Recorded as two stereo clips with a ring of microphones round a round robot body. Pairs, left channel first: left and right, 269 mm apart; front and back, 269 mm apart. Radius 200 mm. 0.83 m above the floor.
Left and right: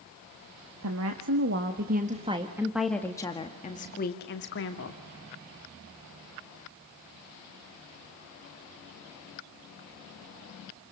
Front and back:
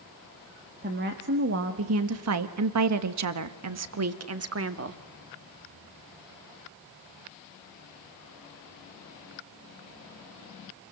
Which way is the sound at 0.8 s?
120° right.